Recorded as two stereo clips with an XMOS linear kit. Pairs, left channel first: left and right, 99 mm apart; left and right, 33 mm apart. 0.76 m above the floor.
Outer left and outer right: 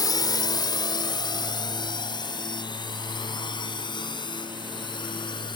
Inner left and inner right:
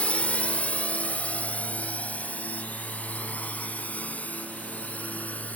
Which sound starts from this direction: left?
A drone, at 0.0 s.